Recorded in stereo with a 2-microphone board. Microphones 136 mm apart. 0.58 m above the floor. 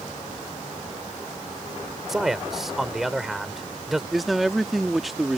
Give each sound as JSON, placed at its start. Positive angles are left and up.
{"t": 2.1, "sound": "a man speaking", "side_deg": 0}
{"t": 4.1, "sound": "a man speaking", "side_deg": 0}